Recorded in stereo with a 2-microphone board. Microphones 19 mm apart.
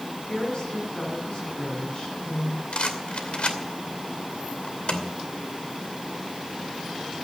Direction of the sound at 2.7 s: 75° left (ahead or behind).